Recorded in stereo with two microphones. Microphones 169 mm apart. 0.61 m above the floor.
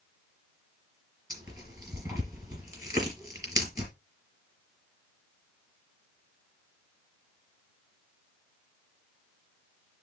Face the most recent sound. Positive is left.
turn(degrees=-20)  # may be behind; listen again after turning